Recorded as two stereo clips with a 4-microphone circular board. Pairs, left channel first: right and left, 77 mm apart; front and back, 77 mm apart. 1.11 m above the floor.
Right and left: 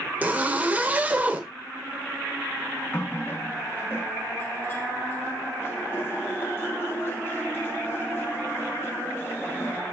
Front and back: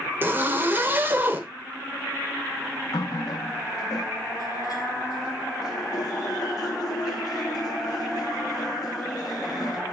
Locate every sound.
0.2 s a zipper: 140° left, 0.9 m
2.9 s a running tap: 35° right, 1.0 m